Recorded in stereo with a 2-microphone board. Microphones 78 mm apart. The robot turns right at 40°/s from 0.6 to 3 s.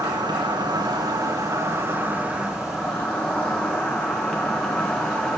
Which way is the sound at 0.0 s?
85° right.